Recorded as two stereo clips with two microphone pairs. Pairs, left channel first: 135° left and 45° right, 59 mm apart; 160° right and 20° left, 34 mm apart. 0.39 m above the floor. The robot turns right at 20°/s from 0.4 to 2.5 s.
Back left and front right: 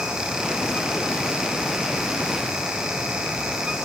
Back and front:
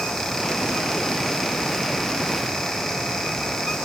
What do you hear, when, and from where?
Only background noise.